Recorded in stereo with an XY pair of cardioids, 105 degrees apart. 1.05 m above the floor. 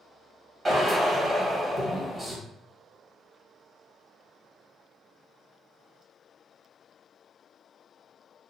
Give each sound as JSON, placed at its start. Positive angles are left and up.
{"t": 0.7, "sound": "a drill", "azimuth_deg": -20, "distance_m": 1.5}